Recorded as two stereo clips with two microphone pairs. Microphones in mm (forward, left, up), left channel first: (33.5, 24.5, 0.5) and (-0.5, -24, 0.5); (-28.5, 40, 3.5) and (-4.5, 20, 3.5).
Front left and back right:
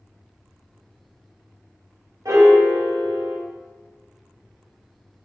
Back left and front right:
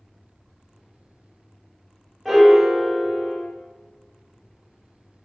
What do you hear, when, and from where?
2.2 s a piano: 135° right, 0.8 m